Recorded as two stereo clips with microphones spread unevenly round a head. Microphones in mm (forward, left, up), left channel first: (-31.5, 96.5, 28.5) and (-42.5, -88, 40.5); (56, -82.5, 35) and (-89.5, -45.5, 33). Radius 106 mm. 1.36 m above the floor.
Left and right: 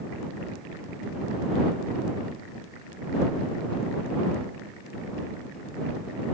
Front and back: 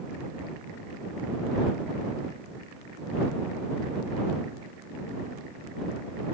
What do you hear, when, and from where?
Only background noise.